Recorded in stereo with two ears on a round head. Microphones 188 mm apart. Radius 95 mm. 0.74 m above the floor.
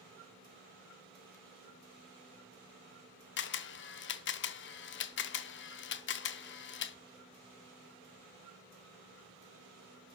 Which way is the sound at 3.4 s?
60° left (ahead or behind).